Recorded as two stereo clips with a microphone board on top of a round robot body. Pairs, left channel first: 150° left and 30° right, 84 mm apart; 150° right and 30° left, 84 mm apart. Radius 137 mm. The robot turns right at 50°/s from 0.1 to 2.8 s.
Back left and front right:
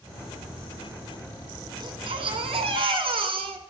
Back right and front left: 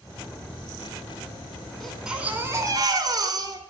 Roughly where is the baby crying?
Ahead right.